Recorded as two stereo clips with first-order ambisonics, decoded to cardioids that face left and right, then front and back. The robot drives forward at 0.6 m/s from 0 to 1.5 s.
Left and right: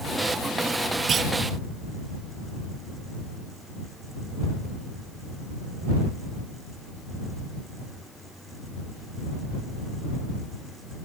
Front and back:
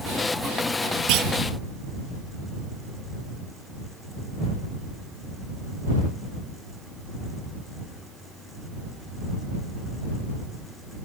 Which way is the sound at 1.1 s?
155° right.